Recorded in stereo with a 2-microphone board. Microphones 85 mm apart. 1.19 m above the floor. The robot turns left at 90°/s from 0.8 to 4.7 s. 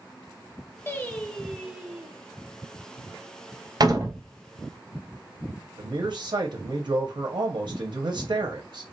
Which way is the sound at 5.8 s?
60° right (ahead or behind).